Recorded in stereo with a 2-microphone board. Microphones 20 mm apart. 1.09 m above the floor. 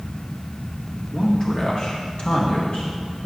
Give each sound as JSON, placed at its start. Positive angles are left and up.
{"t": 1.1, "sound": "a man speaking", "side_deg": 20, "distance_m": 1.8}